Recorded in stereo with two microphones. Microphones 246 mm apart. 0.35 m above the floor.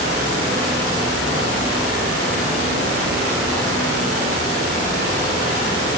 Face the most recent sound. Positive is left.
No sound to turn to.